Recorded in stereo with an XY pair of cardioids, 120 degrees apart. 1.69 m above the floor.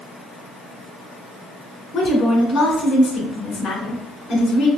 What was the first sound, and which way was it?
A woman speaking, 45° left.